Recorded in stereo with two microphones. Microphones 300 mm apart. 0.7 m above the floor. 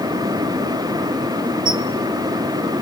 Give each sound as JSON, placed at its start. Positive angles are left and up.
{"t": 1.6, "sound": "a squeak", "side_deg": -60, "distance_m": 2.0}